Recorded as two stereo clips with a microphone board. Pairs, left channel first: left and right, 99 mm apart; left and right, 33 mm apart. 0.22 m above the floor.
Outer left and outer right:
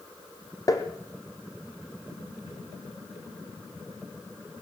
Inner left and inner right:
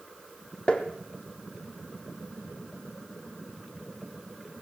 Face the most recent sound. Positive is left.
turn(degrees=35)  # may be behind; listen again after turning